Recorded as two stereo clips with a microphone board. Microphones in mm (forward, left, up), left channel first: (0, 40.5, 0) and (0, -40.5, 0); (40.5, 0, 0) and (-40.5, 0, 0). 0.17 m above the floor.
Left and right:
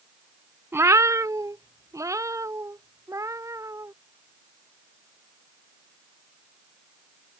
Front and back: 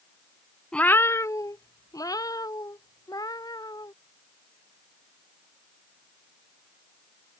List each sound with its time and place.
0.7 s a cat meowing: 75° right; by 3.9 s 40° right